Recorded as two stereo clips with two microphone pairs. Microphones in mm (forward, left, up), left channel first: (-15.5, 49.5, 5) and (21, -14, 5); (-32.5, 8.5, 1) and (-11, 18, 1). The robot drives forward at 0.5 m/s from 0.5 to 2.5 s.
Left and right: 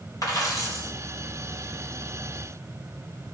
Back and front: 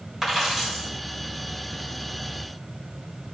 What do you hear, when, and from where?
0.2 s a dropped coin: 100° left, 2 m; by 0.9 s 105° left, 2 m